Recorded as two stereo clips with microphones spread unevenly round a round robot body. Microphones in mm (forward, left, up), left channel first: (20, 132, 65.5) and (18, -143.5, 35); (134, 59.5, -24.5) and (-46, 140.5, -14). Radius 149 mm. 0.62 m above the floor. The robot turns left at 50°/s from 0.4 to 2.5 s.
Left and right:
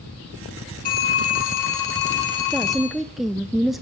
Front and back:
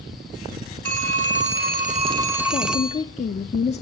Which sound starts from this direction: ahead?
A woman speaking, at 2.5 s.